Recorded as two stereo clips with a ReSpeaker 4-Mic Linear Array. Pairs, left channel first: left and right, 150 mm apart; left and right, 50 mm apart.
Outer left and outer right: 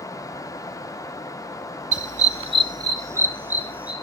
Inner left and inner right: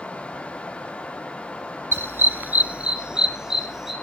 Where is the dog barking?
50° right (ahead or behind), 0.7 m; by 3.9 s 10° right (ahead or behind), 2 m.